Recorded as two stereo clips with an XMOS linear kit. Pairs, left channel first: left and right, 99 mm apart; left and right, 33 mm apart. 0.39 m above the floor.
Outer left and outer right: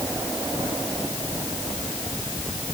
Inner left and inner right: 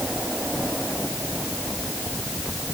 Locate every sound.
Only background noise.